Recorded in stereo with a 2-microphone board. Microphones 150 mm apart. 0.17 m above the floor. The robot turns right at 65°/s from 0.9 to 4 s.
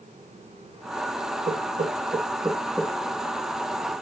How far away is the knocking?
About 2.0 m.